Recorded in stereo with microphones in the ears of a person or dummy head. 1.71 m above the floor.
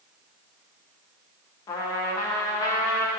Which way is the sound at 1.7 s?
20° left (ahead or behind).